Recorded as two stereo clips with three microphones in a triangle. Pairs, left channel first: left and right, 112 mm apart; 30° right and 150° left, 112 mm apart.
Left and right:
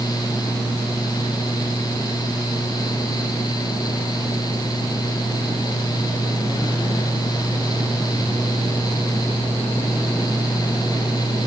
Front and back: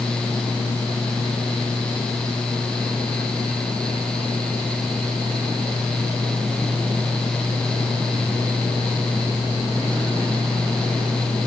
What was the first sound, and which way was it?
Only background noise.